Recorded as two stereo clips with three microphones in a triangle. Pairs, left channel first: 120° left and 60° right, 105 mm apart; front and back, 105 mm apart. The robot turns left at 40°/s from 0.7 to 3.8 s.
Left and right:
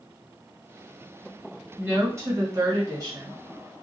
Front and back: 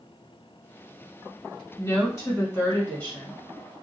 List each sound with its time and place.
1.8 s a woman speaking: 10° right, 1.6 m; by 3.4 s 75° right, 1.6 m